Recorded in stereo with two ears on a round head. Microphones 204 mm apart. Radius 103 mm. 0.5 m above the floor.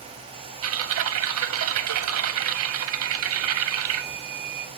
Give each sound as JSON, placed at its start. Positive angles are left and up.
{"t": 0.6, "sound": "typing on a keyboard", "side_deg": -70, "distance_m": 0.6}